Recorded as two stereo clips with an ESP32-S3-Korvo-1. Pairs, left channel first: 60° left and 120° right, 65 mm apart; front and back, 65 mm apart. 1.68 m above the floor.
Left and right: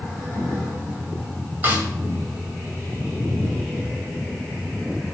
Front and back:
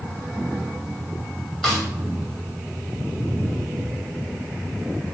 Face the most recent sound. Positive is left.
turn(degrees=-80)